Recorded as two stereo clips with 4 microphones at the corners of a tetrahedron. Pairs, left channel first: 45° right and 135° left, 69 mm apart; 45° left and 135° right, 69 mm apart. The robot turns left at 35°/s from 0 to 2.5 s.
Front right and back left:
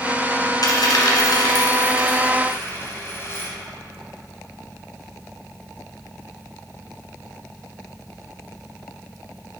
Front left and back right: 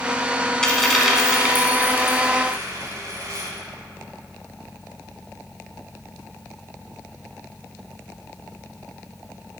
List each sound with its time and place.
0.6 s a dropped coin: 30° right, 1.2 m; by 3.5 s 95° right, 1.2 m